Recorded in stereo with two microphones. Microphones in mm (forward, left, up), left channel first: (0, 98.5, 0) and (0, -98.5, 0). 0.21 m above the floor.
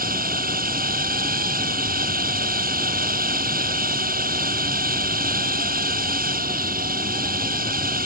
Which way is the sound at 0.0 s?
45° right (ahead or behind).